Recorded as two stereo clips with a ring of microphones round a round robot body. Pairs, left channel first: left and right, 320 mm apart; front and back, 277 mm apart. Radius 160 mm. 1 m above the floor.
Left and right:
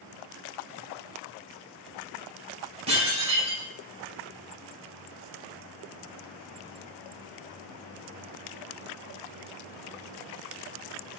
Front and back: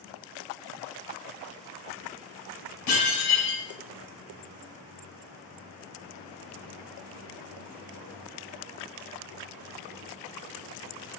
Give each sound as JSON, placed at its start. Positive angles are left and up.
{"t": 2.9, "sound": "dishes clattering", "azimuth_deg": -15, "distance_m": 4.0}